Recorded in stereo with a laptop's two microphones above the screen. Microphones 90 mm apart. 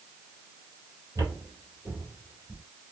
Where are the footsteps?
45° right (ahead or behind), 1.2 m; by 2.6 s 5° left (ahead or behind), 1.3 m.